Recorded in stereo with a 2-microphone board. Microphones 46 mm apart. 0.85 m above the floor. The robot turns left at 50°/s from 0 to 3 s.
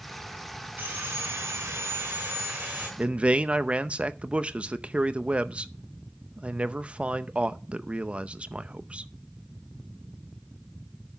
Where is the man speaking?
25° right (ahead or behind), 0.6 m.